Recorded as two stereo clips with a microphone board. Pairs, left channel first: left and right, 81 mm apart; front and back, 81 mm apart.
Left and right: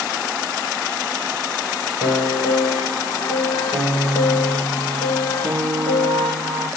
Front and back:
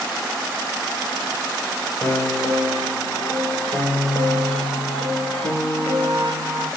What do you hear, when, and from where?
2.0 s a piano: 75° right, 9 m